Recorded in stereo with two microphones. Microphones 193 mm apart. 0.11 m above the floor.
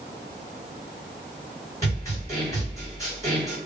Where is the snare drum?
15° left (ahead or behind), 1.9 m.